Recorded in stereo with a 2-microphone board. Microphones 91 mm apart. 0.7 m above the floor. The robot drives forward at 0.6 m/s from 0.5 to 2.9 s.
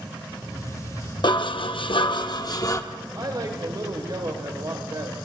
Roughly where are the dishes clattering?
Left.